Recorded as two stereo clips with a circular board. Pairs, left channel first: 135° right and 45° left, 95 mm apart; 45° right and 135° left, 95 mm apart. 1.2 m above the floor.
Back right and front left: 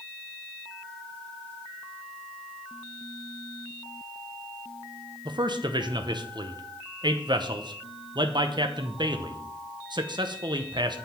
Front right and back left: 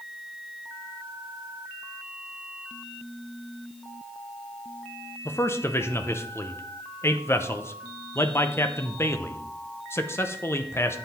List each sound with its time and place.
5.2 s a man speaking: 15° left, 0.7 m